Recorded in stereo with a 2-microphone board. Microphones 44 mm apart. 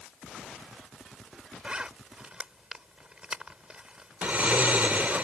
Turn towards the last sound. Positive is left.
turn(degrees=-40)  # may be behind; listen again after turning